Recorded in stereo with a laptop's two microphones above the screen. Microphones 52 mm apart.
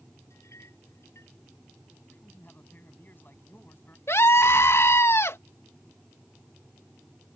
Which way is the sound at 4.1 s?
60° left (ahead or behind).